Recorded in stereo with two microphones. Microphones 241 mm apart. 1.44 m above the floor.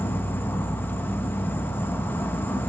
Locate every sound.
0.0 s an insect: 10° left (ahead or behind), 0.7 m